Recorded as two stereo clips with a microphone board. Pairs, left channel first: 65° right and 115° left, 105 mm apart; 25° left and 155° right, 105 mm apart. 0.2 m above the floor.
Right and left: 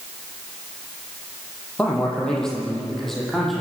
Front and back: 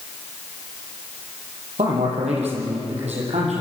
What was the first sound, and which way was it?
A man speaking, 145° right.